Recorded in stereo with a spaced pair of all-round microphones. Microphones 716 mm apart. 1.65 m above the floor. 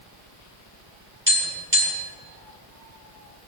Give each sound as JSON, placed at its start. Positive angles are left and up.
{"t": 1.3, "sound": "tapping", "side_deg": -15, "distance_m": 3.5}